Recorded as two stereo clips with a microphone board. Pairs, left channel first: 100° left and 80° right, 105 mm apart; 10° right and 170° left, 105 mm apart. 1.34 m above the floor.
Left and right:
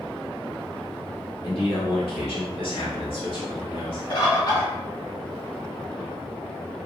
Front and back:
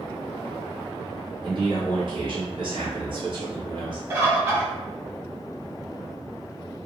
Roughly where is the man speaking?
Behind left.